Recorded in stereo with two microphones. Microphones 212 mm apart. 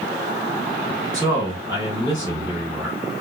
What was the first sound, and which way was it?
A man speaking, 20° right (ahead or behind).